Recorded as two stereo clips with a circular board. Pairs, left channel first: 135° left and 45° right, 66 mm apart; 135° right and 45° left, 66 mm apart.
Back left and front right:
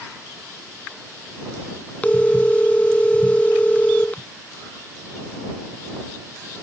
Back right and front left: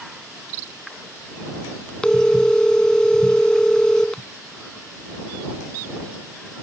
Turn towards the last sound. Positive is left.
turn(degrees=165)